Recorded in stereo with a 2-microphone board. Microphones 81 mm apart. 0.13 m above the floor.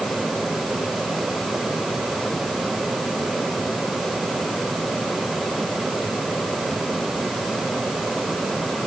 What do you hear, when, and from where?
Only background noise.